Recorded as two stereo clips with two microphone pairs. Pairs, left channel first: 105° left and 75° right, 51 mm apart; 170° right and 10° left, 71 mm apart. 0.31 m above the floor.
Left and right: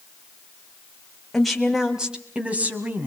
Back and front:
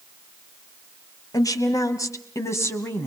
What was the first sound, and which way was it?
A woman speaking, 165° right.